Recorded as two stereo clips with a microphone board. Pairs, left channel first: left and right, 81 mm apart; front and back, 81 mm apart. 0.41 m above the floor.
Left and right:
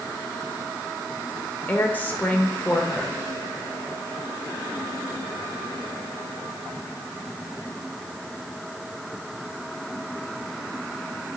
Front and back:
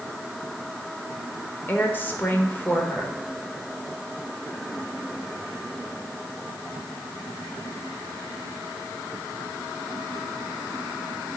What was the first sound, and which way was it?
A woman speaking, 40° left.